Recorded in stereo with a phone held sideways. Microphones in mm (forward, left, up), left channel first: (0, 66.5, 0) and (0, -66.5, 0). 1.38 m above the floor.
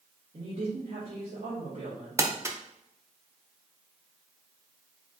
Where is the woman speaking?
70° right (ahead or behind), 2 m.